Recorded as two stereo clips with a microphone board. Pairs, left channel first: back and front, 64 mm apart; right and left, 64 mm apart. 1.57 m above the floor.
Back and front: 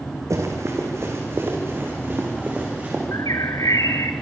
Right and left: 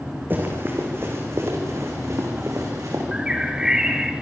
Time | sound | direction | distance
0.3 | running footsteps | 35° left | 4.5 m
3.1 | a bird | 165° left | 1.8 m